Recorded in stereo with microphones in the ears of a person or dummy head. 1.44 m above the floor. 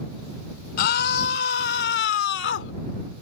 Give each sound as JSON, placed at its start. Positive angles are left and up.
{"t": 0.8, "sound": "a scream", "side_deg": 60}